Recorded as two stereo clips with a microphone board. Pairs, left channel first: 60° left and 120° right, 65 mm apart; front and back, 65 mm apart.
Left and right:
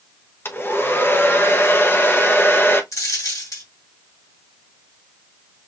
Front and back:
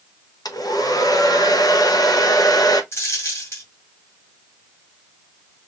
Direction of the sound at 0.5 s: 10° left.